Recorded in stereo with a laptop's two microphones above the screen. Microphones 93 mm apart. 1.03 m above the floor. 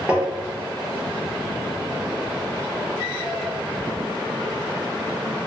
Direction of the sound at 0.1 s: 10° right (ahead or behind).